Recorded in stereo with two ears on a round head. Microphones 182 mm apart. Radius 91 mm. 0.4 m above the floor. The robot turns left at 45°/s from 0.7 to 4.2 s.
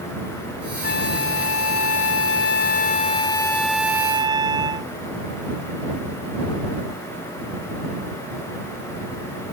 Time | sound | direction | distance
0.8 | a flute | 130° left | ?